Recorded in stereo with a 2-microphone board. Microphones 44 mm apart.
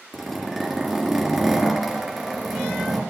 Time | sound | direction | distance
0.1 | a zipper | centre (ahead or behind) | 3 m